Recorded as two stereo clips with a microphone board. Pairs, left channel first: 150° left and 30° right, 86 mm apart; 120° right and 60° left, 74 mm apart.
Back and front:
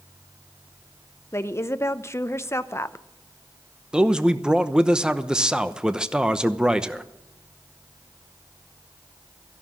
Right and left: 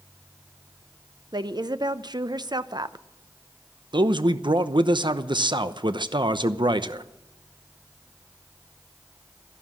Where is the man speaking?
50° left, 0.8 m.